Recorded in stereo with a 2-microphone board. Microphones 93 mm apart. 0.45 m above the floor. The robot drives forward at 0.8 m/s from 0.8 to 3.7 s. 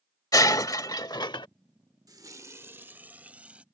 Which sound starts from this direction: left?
Breaking glass, at 0.3 s.